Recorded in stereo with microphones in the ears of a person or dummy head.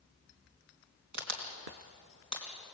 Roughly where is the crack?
Right.